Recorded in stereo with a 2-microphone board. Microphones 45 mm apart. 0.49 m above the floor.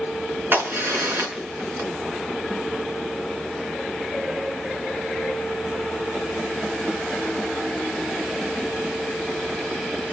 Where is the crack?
50° right (ahead or behind), 4.5 m.